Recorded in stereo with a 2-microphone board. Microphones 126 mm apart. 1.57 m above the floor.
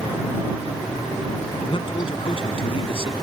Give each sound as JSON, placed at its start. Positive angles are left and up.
{"t": 1.7, "sound": "a man speaking", "side_deg": 45}